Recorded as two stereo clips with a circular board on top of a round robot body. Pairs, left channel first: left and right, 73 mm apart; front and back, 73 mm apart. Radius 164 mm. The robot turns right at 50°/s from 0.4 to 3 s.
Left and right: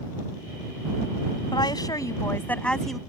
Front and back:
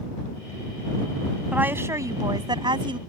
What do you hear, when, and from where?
1.5 s a woman speaking: 105° left; by 3.0 s straight behind